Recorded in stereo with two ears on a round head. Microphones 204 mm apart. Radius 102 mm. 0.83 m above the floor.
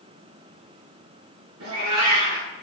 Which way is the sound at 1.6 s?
75° right (ahead or behind).